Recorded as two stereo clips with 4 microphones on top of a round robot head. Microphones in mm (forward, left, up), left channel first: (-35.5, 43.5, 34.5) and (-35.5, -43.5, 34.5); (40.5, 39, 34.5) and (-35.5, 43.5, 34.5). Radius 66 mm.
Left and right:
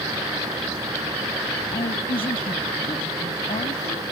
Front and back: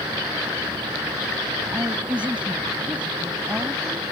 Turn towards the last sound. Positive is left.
turn(degrees=105)